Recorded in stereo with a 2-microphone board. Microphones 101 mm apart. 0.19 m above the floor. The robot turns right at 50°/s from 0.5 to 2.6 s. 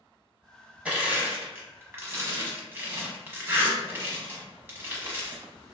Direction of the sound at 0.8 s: 15° right (ahead or behind).